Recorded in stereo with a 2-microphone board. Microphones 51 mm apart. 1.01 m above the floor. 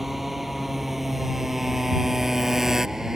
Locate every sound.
0.0 s a motorcycle: 5° right (ahead or behind); by 3.2 s 10° right (ahead or behind)